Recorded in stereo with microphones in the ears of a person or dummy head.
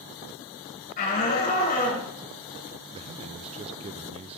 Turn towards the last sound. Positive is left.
turn(degrees=-35)  # may be behind; listen again after turning